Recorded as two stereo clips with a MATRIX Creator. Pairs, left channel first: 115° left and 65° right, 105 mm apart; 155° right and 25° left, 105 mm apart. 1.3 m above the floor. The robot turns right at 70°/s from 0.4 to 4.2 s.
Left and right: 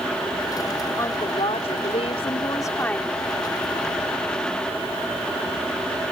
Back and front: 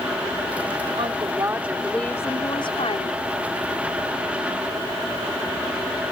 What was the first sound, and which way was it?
A woman speaking, 50° left.